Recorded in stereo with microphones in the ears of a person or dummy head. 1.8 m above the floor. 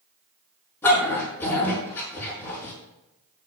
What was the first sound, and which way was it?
A dog barking, 15° left (ahead or behind).